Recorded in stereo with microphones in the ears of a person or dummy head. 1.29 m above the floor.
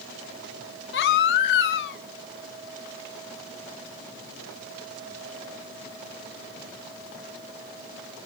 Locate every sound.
0.9 s a baby crying: 65° left (ahead or behind), 1.5 m